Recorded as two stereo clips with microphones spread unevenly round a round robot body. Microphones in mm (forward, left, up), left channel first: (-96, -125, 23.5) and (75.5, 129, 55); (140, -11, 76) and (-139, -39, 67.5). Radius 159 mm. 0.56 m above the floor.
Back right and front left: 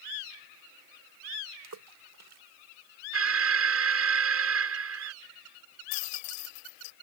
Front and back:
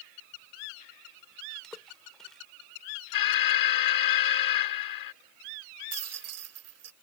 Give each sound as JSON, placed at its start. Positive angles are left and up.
{"t": 1.6, "sound": "a splash", "azimuth_deg": 95}
{"t": 3.1, "sound": "an alarm", "azimuth_deg": 5}
{"t": 5.9, "sound": "a rattle", "azimuth_deg": -140}